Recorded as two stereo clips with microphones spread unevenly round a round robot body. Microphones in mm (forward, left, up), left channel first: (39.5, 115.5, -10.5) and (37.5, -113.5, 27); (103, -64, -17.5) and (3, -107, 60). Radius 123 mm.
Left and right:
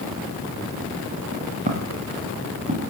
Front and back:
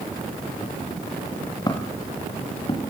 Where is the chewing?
I don't hear chewing.